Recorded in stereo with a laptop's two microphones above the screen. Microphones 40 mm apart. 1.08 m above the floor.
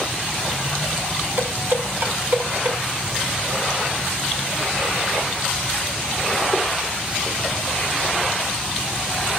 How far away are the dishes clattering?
About 6.5 m.